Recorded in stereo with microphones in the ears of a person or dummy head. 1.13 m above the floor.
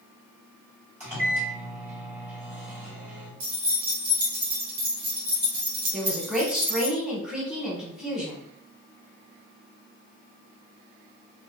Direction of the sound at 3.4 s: 55° right (ahead or behind).